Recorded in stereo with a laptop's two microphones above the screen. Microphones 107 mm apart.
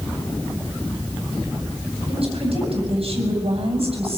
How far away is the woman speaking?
About 7.5 m.